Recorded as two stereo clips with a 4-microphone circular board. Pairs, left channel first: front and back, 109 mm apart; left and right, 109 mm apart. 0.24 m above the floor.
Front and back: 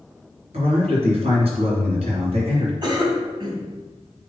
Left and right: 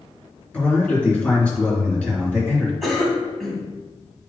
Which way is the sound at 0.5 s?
165° left.